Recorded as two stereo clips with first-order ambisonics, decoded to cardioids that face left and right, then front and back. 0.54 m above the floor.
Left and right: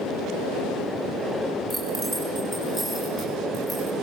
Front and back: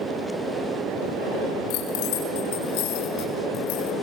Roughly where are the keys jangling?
Ahead.